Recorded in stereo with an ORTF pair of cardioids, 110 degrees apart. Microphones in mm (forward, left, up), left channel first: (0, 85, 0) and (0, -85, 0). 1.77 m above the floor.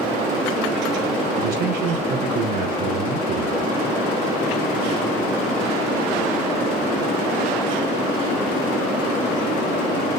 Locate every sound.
1.4 s a man speaking: 70° right, 3 m